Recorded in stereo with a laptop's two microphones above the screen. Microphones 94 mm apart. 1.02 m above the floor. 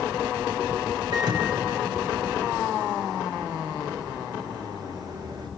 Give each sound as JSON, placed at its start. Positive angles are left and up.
{"t": 1.1, "sound": "a microwave", "side_deg": -50, "distance_m": 3.0}